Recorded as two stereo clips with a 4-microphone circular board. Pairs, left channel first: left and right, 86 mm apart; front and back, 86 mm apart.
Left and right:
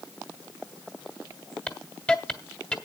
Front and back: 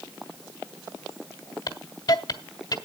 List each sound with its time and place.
1.7 s a hiss: 15° left, 1.5 m